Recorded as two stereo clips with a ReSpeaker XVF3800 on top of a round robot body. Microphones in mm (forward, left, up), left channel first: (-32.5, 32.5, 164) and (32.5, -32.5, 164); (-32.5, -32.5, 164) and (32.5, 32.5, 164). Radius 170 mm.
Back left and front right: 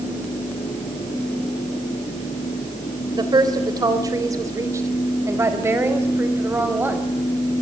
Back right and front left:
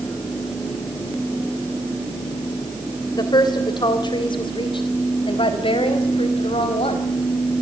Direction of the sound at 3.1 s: 90° right.